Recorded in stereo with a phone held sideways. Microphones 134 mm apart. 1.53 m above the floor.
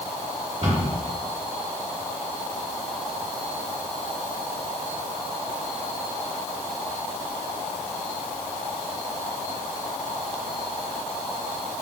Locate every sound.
0.6 s a cupboard door: 50° right (ahead or behind), 2 m